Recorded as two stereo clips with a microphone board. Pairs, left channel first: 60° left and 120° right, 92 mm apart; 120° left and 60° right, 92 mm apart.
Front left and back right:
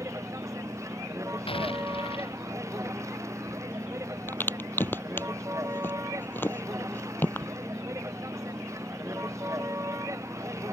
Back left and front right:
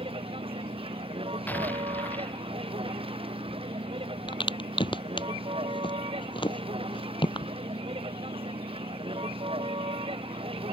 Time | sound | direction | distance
0.0 | a vehicle | 65° right | ?
1.5 | an explosion | 50° left | ?
4.3 | a crack | 125° left | ?